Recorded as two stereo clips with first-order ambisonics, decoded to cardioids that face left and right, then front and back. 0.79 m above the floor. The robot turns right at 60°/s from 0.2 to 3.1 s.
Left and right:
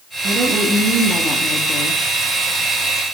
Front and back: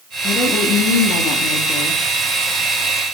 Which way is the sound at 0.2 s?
50° right.